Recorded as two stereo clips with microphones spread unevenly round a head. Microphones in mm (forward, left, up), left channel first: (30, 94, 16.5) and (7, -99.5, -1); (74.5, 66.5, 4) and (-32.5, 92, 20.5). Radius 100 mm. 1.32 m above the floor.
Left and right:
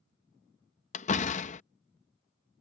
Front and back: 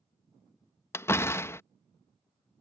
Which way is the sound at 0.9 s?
55° left.